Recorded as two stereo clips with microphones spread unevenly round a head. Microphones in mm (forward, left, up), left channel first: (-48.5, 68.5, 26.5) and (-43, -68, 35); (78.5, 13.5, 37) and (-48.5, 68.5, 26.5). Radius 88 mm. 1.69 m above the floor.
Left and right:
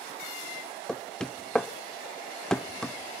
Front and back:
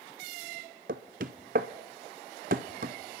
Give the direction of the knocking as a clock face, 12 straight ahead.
6 o'clock.